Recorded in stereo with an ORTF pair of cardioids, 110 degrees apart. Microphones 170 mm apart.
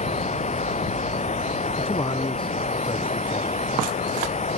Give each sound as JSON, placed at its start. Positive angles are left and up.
{"t": 0.0, "sound": "running water", "azimuth_deg": 40}
{"t": 1.8, "sound": "a man speaking", "azimuth_deg": 30}